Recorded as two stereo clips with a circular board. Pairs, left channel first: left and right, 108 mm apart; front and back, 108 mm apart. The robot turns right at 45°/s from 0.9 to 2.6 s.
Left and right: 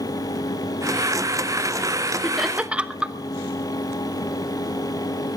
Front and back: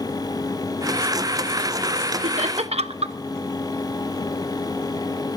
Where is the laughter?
175° left, 1.0 m; by 3.1 s 170° right, 1.0 m.